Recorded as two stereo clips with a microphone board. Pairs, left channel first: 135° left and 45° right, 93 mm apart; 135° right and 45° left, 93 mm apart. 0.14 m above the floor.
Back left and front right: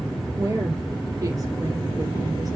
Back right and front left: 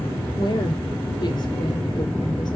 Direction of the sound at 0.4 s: 95° right.